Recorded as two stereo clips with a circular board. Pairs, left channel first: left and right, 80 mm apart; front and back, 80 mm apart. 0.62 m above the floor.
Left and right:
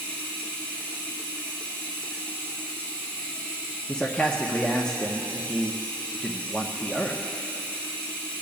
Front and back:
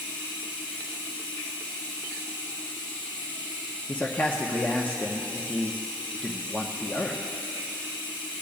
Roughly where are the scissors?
No scissors in this recording.